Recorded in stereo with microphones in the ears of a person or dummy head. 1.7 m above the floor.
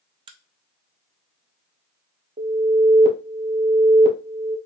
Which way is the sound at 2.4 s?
35° right (ahead or behind).